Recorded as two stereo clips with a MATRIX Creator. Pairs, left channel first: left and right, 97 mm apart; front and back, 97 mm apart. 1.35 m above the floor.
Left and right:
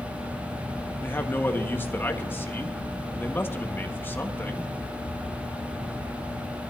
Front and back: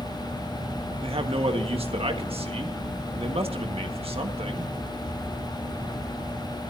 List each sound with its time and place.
1.0 s a man speaking: 160° left, 1.6 m